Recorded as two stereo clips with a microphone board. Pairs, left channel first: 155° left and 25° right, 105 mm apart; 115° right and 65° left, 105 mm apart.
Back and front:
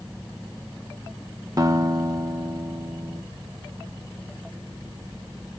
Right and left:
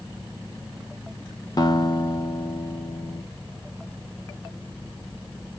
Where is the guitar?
70° right, 0.7 m.